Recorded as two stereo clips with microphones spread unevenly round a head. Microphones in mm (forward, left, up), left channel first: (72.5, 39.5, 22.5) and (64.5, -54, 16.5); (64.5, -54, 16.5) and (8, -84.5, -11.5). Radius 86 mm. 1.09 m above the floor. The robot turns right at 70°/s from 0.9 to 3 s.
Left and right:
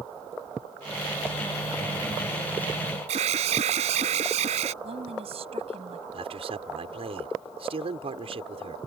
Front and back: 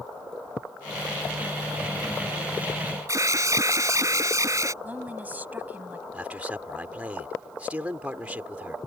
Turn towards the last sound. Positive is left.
turn(degrees=-85)